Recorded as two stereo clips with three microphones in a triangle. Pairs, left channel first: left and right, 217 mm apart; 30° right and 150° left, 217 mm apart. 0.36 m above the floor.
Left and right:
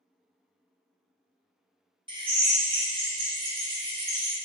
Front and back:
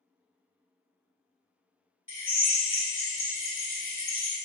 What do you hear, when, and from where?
2.1 s a drill: 20° right, 0.9 m